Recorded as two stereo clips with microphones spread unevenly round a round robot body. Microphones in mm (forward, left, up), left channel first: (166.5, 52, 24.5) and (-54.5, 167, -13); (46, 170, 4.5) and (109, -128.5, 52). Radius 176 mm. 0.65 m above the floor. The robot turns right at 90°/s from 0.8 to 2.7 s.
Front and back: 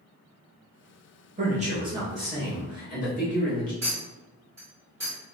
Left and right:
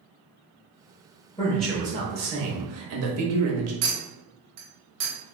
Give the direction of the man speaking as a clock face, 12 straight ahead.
7 o'clock.